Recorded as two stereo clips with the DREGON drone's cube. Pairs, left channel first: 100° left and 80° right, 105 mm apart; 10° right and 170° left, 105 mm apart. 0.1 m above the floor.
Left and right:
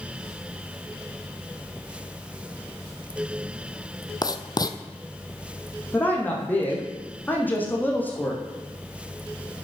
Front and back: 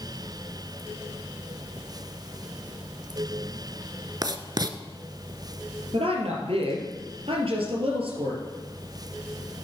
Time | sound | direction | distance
4.2 | writing | 135° left | 0.8 m
5.9 | a woman speaking | 170° left | 3 m